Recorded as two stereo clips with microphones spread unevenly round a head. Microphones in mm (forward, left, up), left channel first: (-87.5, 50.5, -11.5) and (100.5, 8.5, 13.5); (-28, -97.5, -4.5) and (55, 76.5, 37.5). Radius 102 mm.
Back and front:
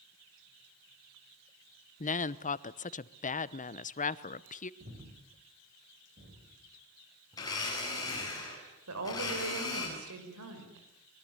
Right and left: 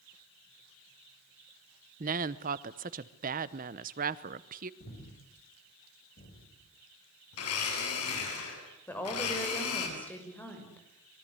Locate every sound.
2.0 s a woman speaking: 115° left, 0.9 m
4.8 s breathing: 70° right, 6 m
7.3 s a blender: 120° right, 8.5 m
8.9 s a woman speaking: 35° right, 6 m